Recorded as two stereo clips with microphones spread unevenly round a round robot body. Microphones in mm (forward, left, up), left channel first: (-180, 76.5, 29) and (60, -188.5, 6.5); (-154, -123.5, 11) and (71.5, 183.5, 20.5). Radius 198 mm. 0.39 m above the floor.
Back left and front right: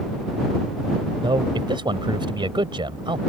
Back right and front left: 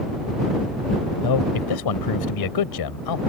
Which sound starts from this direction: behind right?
A man speaking, at 1.2 s.